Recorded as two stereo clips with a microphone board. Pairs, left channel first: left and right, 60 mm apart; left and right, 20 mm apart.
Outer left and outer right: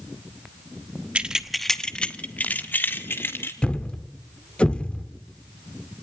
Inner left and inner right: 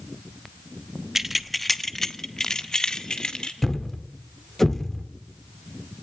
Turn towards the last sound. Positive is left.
turn(degrees=20)  # may be behind; listen again after turning